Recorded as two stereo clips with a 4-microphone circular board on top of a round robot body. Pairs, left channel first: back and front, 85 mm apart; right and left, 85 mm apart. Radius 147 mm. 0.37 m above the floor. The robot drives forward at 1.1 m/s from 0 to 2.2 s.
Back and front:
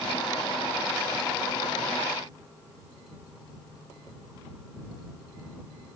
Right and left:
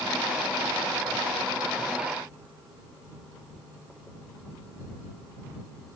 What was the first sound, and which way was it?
Only background noise.